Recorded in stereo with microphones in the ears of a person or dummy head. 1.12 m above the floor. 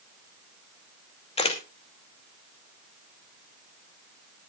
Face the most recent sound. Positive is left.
turn(degrees=30)  # may be behind; listen again after turning